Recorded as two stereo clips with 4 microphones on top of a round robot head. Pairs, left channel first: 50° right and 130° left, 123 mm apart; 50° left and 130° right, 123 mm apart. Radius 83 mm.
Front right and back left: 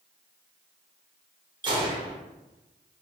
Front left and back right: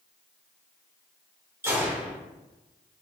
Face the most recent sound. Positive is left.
turn(degrees=165)